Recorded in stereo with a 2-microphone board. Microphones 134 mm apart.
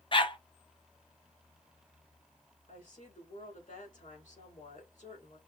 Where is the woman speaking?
70° left (ahead or behind), 4 m.